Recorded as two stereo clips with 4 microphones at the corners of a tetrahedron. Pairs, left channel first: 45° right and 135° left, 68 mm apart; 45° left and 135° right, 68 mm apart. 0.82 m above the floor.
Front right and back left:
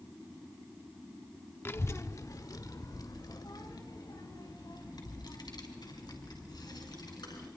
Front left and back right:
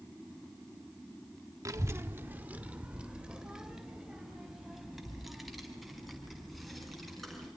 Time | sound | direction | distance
1.6 | a child speaking | 100° right | 1.1 m